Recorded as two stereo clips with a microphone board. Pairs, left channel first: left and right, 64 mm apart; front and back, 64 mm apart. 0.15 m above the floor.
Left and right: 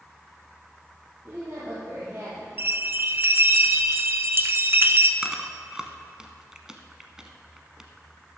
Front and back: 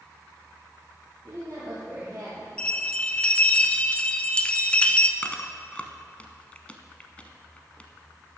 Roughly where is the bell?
Ahead right.